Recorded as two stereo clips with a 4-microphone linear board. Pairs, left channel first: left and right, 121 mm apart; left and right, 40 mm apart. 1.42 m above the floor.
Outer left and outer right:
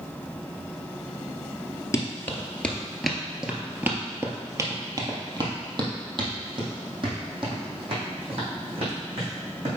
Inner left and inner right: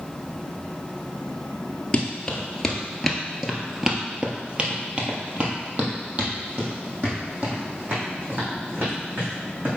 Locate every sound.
1.9 s running footsteps: 25° left (ahead or behind), 1.5 m; by 9.8 s 50° right (ahead or behind), 4.5 m